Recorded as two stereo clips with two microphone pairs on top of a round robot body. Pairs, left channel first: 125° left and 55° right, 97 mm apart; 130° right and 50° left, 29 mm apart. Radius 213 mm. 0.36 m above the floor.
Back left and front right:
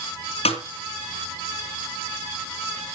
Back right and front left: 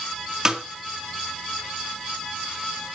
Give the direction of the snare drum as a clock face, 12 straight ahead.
8 o'clock.